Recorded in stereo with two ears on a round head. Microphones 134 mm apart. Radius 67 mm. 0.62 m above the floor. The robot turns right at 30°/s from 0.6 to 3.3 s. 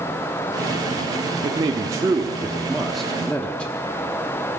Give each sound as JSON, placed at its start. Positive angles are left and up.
{"t": 1.4, "sound": "a man speaking", "azimuth_deg": -45, "distance_m": 0.8}